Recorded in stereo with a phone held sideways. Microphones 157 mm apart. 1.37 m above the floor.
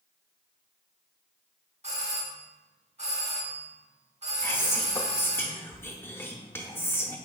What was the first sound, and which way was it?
A doorbell, 45° right (ahead or behind).